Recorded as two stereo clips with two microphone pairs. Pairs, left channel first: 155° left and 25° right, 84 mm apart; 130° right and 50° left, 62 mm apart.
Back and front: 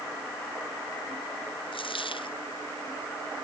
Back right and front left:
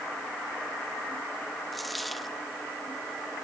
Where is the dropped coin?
140° left.